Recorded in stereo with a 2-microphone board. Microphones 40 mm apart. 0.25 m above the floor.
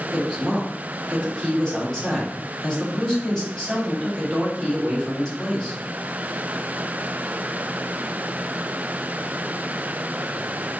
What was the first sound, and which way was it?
A woman speaking, 20° left (ahead or behind).